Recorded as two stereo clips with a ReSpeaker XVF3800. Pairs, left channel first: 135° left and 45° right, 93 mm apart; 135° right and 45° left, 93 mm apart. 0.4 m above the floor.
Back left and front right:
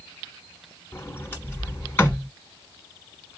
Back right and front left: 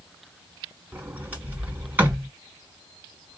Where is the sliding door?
100° left, 1.2 m.